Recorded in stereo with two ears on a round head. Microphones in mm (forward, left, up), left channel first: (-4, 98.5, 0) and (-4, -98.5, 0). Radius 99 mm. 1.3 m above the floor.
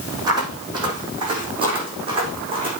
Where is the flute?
I don't hear a flute.